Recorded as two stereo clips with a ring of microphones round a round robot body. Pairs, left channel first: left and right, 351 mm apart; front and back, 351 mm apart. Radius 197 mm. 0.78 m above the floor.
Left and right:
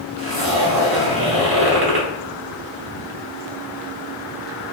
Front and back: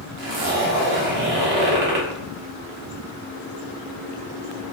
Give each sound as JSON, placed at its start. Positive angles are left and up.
{"t": 0.2, "sound": "a zipper", "azimuth_deg": -145, "distance_m": 0.8}